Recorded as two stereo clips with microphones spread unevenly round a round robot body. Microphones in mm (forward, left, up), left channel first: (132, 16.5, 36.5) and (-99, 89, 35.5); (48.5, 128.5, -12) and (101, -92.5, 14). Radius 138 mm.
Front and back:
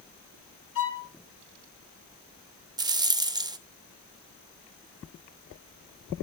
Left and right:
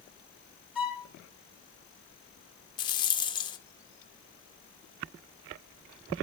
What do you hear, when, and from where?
0.8 s a violin: 5° left, 5.5 m
2.8 s a rattle: 110° left, 0.7 m